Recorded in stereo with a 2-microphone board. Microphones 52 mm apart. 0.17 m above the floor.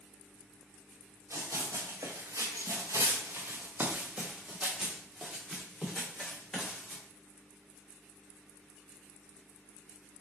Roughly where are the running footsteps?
Right.